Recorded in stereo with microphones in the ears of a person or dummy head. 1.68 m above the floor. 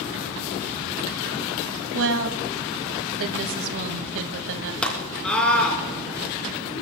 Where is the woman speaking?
75° right (ahead or behind), 2.0 m.